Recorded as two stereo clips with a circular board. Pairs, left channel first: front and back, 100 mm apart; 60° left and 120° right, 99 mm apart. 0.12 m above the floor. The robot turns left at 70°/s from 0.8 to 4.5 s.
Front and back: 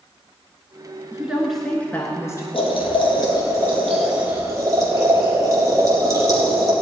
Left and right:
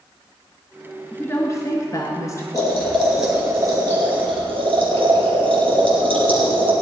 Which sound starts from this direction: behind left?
A woman speaking, at 1.1 s.